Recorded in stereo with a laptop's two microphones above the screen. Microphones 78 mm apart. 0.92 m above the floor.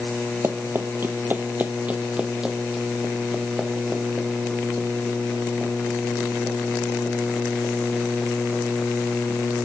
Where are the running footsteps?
35° right (ahead or behind), 1.1 m; by 9.7 s 10° left (ahead or behind), 5.5 m.